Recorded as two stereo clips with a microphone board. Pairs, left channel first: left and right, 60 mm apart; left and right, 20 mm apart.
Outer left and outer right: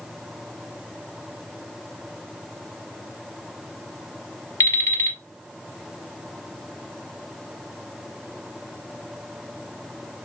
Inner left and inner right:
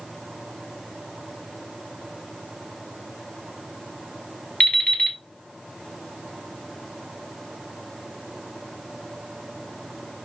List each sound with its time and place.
4.6 s an alarm clock: 60° left (ahead or behind), 2.5 m